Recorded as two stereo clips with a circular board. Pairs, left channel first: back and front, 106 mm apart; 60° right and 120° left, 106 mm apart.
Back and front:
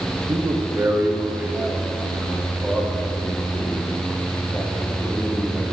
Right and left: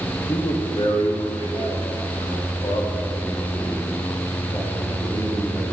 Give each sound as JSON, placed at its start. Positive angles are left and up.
{"t": 0.3, "sound": "a man speaking", "azimuth_deg": -20, "distance_m": 0.8}